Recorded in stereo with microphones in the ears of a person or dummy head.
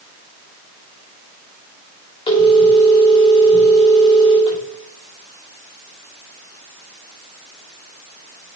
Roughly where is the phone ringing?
Left.